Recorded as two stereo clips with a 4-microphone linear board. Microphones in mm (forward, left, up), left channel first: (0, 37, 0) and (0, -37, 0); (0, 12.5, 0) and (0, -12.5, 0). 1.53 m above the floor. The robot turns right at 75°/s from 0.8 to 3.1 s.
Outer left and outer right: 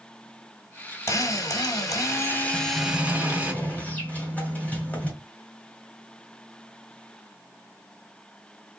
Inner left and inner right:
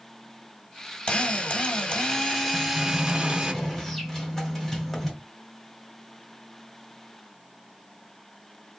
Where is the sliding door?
5° right, 1.5 m; by 5.1 s 40° left, 1.5 m.